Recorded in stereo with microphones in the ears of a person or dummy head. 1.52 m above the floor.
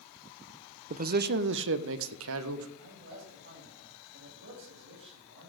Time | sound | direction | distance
0.9 | a man speaking | 45° right (ahead or behind) | 0.6 m
2.8 | a man speaking | 70° right (ahead or behind) | 7 m